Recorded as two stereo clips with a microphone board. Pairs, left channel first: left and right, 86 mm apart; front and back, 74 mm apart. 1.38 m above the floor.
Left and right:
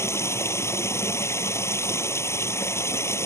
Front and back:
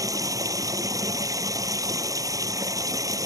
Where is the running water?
145° left.